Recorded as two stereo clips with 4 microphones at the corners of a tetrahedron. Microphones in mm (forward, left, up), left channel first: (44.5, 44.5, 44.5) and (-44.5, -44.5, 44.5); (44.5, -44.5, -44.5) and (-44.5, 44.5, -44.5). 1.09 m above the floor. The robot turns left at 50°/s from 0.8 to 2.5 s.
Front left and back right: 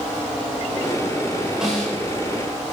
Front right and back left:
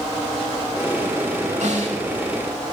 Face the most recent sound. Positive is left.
turn(degrees=95)